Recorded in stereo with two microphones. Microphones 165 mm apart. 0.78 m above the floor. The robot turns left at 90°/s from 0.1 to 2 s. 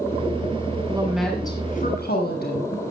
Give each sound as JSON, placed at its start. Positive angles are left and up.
{"t": 0.9, "sound": "a woman speaking", "azimuth_deg": -150, "distance_m": 6.5}